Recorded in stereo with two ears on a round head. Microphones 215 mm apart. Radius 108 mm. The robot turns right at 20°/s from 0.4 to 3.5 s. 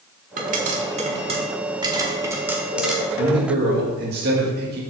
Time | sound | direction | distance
0.4 | a pop | 35° right (ahead or behind) | 1.5 m
3.2 | a man speaking | 50° right (ahead or behind) | 2.0 m